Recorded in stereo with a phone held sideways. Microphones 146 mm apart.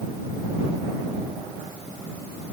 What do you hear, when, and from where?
Only background noise.